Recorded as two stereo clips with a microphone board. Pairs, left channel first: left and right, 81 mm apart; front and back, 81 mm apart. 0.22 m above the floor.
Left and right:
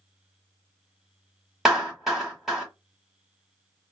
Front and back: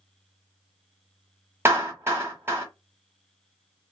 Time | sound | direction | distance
1.6 | a clap | 175° right | 1.2 m